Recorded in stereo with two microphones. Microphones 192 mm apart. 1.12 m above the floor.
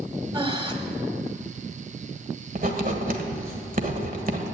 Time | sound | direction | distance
0.3 | breathing | 25° right (ahead or behind) | 1.2 m
2.5 | writing | 45° right (ahead or behind) | 1.4 m